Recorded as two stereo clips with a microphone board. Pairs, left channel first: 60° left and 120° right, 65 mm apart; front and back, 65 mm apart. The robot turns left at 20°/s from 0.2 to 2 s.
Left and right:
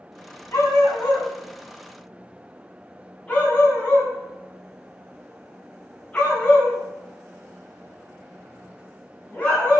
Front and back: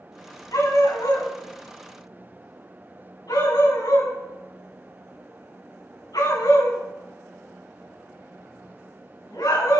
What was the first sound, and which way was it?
A dog barking, 15° left.